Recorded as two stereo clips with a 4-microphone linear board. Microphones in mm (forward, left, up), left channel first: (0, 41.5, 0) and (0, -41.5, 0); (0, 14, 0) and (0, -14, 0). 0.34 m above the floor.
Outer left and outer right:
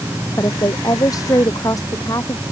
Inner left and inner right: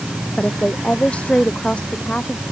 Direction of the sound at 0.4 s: 45° left (ahead or behind).